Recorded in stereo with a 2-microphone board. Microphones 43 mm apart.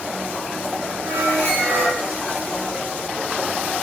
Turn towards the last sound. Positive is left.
turn(degrees=-60)  # may be behind; listen again after turning